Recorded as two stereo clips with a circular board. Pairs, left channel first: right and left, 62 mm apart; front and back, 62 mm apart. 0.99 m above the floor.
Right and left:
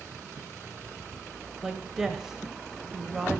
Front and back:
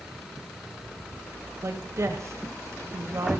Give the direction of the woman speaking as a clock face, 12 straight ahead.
6 o'clock.